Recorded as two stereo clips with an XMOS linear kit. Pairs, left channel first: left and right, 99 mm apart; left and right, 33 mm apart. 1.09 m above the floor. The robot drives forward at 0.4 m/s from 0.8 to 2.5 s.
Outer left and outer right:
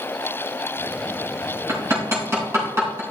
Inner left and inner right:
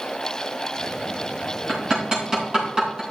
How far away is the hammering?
About 4 m.